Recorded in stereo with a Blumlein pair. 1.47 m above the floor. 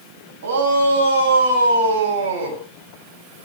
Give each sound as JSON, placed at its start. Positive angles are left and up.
{"t": 0.4, "sound": "a shout", "azimuth_deg": -55, "distance_m": 9.5}